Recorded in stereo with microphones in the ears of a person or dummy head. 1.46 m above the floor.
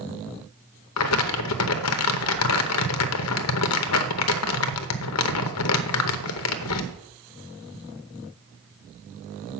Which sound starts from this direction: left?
Crumpling, at 1.0 s.